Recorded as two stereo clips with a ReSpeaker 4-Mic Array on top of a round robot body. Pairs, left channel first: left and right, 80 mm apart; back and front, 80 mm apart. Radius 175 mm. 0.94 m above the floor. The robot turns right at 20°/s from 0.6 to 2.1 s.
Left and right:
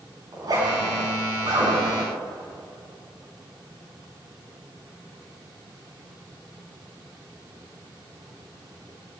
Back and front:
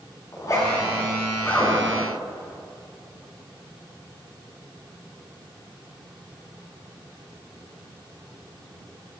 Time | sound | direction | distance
0.3 | a zipper | 130° right | 8.5 m